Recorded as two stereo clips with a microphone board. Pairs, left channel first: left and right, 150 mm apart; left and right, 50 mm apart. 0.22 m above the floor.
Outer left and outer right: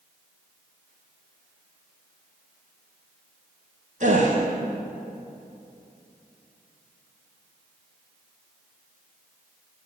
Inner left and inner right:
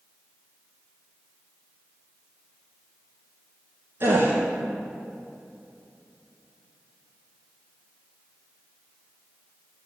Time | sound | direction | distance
4.0 | a gasp | 55° right (ahead or behind) | 2 m